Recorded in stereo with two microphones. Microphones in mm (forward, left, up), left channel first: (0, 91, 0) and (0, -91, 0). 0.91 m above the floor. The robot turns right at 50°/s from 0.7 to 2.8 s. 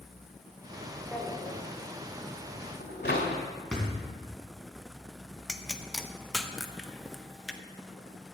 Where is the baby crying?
No baby crying in this recording.